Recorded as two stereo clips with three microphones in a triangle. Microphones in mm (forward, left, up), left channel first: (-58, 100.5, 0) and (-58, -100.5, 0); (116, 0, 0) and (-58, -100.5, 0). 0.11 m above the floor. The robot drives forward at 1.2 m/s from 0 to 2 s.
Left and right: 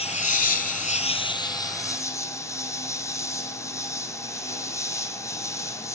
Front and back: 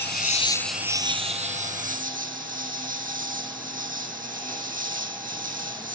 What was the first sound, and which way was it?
An insect, 40° left.